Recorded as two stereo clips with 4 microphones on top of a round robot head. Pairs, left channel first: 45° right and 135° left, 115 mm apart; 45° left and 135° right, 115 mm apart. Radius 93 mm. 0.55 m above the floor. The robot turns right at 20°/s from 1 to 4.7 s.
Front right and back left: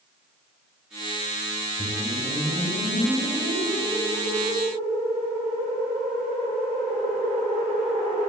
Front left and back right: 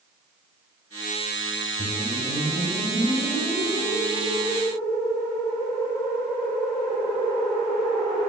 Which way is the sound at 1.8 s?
45° left.